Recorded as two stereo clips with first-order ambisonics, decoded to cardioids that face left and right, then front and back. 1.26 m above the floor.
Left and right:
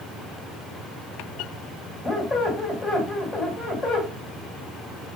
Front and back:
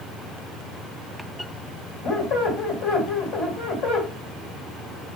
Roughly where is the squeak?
Ahead.